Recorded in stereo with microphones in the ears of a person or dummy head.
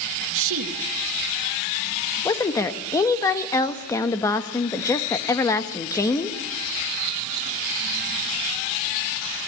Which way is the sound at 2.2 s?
20° left (ahead or behind).